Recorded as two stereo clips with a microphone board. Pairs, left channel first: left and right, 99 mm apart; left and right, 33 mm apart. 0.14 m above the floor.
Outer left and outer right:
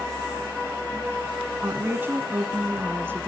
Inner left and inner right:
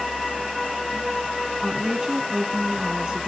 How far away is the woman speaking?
About 1.2 m.